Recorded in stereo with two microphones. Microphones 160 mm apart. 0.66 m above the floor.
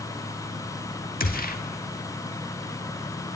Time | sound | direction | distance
1.2 | a gunshot | 65° left (ahead or behind) | 1.4 m